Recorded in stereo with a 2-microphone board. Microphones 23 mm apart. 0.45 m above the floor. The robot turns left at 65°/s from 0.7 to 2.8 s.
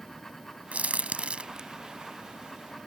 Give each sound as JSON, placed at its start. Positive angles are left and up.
{"t": 0.7, "sound": "a crack", "side_deg": -70}